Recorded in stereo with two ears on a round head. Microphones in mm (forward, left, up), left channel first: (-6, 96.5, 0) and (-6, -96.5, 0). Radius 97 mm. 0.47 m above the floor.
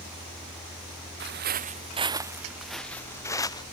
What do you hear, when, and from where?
1.2 s footsteps: 55° right (ahead or behind); by 3.6 s 20° left (ahead or behind)